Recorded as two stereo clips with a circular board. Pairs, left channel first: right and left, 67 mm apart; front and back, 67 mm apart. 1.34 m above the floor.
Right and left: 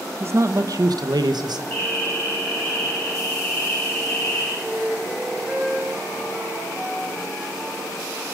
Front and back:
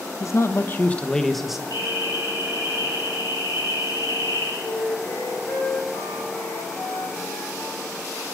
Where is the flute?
10° left, 5 m.